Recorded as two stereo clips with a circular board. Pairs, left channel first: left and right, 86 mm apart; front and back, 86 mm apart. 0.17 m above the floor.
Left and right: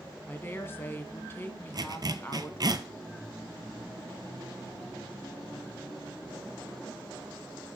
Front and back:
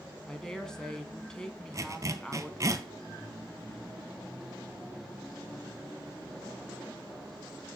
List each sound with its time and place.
0.3 s a woman speaking: 75° left, 1.4 m
1.7 s a zipper: 130° right, 0.7 m